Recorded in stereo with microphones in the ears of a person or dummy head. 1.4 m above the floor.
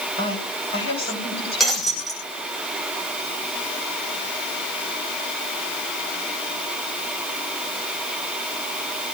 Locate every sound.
0.2 s a woman speaking: 30° left (ahead or behind), 8.5 m
1.6 s breaking glass: centre (ahead or behind), 5.5 m